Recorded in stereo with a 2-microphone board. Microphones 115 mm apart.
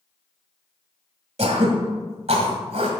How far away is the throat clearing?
About 1.5 m.